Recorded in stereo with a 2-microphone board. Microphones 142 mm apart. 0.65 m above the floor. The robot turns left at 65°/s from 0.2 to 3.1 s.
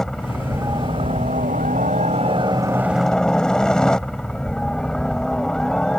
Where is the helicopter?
5° left; by 6.0 s 175° left.